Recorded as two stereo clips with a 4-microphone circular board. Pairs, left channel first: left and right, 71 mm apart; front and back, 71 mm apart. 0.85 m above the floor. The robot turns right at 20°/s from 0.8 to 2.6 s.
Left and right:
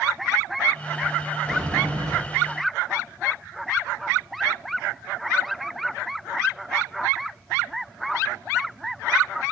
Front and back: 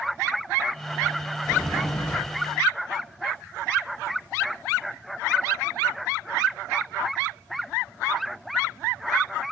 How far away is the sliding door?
About 5.5 m.